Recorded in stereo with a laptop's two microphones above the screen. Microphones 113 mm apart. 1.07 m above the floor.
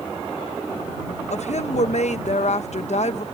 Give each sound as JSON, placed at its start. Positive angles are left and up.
{"t": 1.3, "sound": "a woman speaking", "side_deg": 70}